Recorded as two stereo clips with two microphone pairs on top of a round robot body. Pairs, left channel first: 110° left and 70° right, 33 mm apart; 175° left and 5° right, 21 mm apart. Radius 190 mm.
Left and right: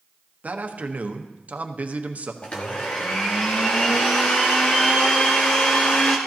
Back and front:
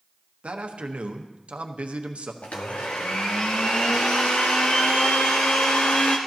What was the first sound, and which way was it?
A man speaking, 30° right.